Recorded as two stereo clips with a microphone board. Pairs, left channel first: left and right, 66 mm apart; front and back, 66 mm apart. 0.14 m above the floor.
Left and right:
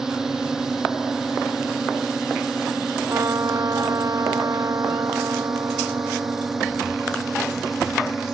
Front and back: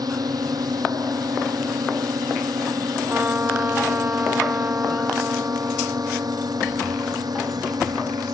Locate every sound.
0.0 s a drone: 170° right; by 8.3 s 175° right
3.1 s a trumpet: 120° right